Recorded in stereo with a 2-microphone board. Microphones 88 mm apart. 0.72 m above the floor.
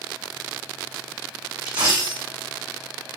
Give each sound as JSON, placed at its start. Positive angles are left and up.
{"t": 1.6, "sound": "a dropped coin", "side_deg": -60, "distance_m": 2.0}